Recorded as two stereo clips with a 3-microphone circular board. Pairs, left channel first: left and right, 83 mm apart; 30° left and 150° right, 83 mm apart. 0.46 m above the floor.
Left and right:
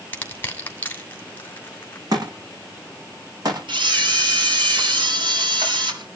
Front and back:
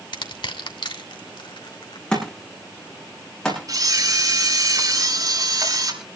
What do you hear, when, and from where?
0.1 s crushing: 25° left, 2.5 m
2.1 s a thud: 50° right, 9.5 m
3.7 s a camera shutter: 105° right, 7.5 m